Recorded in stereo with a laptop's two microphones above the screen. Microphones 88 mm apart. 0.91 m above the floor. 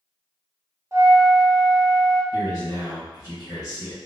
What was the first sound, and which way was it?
A flute, 30° right (ahead or behind).